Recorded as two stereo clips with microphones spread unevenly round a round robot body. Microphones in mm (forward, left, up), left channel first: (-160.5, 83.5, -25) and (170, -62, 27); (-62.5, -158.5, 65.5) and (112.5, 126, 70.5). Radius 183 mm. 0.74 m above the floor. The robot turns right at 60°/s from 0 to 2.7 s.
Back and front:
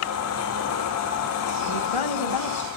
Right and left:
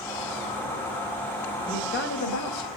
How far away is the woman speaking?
About 3.5 m.